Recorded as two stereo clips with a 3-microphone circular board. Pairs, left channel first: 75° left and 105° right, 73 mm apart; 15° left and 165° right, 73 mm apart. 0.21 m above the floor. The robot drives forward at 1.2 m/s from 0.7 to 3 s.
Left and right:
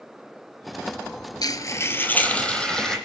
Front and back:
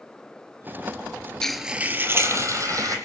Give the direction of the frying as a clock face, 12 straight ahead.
9 o'clock.